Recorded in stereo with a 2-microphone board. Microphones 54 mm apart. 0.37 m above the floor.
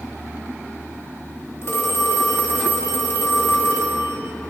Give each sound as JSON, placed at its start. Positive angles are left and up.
{"t": 1.6, "sound": "a phone ringing", "side_deg": 55, "distance_m": 1.1}